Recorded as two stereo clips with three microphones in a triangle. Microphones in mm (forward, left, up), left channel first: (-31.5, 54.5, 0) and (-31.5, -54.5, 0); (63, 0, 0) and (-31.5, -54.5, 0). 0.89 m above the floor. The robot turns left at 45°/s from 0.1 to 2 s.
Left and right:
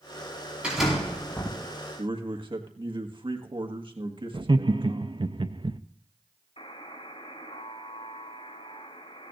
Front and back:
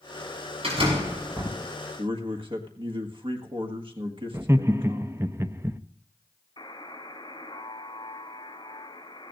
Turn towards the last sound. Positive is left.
turn(degrees=75)